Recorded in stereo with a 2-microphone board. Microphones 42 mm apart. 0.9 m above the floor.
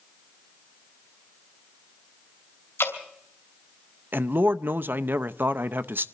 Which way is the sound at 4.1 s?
50° right (ahead or behind).